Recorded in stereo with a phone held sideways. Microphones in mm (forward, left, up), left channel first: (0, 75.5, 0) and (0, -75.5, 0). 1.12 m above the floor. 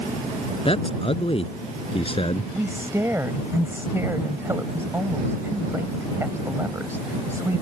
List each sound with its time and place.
0.7 s a man speaking: 40° left (ahead or behind)
2.5 s a woman speaking: 15° right (ahead or behind)